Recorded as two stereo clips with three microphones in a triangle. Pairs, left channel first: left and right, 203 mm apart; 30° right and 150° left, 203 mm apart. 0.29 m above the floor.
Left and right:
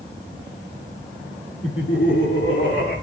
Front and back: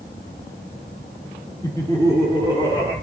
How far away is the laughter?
About 6 m.